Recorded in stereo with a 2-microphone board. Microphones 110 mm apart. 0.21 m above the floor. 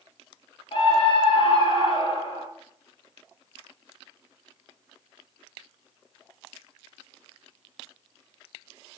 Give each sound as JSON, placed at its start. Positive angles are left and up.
{"t": 0.7, "sound": "a scream", "side_deg": 50, "distance_m": 4.5}